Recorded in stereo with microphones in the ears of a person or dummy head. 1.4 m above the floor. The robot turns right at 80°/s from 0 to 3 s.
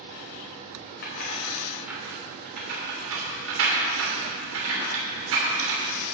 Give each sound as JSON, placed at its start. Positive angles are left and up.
{"t": 1.0, "sound": "keys jangling", "side_deg": 60, "distance_m": 2.5}